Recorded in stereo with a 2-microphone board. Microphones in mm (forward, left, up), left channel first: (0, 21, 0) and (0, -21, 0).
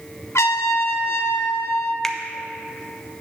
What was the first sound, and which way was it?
A trumpet, 75° left (ahead or behind).